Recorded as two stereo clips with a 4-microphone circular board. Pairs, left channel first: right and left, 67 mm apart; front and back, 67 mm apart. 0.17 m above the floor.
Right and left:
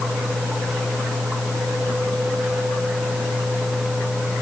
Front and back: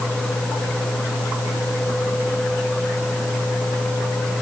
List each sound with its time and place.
Only background noise.